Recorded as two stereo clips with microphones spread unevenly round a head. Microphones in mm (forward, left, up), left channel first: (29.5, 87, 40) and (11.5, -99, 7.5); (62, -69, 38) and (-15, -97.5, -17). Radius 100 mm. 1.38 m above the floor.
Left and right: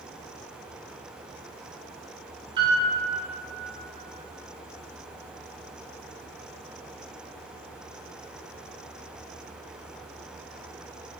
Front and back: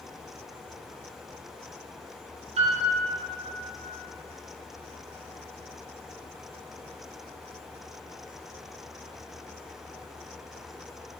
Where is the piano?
165° right, 0.6 m.